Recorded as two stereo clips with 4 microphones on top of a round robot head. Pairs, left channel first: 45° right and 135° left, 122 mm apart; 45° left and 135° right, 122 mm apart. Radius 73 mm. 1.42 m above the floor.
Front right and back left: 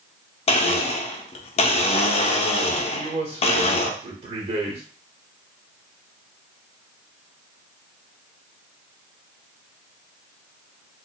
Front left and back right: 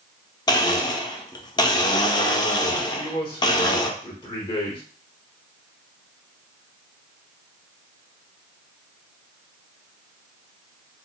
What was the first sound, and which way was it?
A blender, 10° right.